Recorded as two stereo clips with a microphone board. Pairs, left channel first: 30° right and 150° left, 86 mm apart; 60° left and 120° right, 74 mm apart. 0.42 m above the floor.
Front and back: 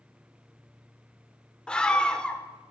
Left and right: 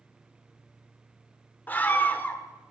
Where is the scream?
35° left, 0.9 m.